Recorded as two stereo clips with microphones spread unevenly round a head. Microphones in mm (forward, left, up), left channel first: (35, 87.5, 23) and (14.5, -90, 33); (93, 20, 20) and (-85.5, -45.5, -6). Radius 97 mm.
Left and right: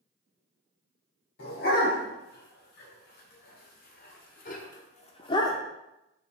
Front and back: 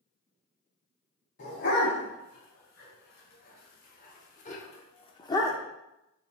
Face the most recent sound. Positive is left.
turn(degrees=30)